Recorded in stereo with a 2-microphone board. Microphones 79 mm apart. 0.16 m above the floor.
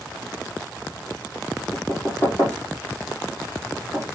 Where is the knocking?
25° left (ahead or behind), 5 m.